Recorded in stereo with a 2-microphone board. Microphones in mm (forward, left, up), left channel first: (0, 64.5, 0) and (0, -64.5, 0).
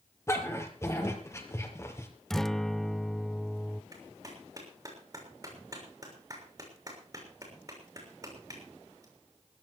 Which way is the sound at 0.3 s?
20° left (ahead or behind).